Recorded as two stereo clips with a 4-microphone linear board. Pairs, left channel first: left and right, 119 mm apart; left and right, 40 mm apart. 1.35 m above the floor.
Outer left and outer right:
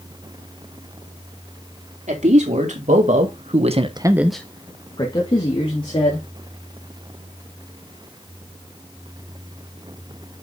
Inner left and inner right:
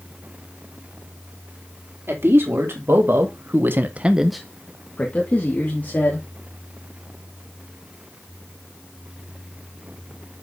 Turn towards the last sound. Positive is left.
turn(degrees=55)  # may be behind; listen again after turning